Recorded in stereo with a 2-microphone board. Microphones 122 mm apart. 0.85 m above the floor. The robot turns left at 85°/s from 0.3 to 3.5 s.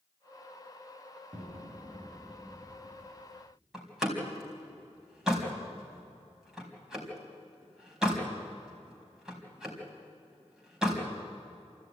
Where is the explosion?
90° right, 3.5 m; by 3.5 s 90° left, 3.5 m.